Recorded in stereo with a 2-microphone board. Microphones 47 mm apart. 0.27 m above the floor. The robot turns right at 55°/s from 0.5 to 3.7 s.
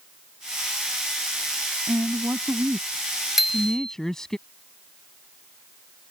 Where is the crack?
I don't hear a crack.